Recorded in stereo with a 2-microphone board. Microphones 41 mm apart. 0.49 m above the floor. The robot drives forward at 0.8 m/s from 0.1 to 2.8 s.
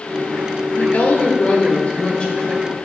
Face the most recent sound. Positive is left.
turn(degrees=20)  # may be behind; listen again after turning